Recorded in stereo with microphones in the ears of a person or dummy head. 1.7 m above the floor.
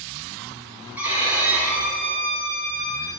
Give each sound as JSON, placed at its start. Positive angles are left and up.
{"t": 1.0, "sound": "a violin", "side_deg": -5, "distance_m": 3.0}